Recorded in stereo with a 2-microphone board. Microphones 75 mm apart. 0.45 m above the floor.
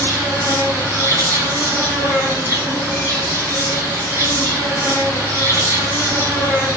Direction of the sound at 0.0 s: 30° right (ahead or behind).